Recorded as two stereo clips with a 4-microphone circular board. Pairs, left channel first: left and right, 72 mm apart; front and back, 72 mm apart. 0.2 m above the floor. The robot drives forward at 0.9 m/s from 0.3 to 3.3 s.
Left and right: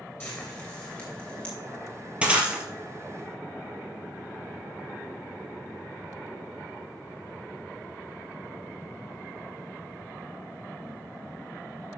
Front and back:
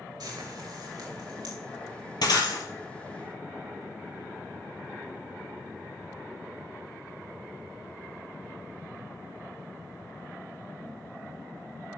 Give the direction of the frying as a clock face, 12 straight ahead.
7 o'clock.